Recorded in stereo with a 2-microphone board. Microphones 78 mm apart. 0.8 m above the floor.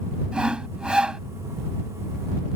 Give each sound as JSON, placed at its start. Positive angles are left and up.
{"t": 0.3, "sound": "sawing", "side_deg": -10}